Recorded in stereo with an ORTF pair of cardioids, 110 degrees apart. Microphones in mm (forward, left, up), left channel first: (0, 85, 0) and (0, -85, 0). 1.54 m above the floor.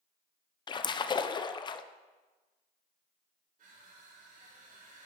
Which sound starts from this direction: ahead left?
A splash, at 0.7 s.